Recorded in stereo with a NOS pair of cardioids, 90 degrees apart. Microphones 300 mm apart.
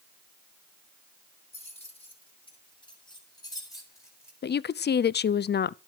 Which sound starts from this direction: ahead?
Keys jangling, at 1.5 s.